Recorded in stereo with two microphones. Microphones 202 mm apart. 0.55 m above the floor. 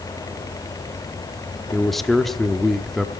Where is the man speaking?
Centre (ahead or behind), 0.8 m.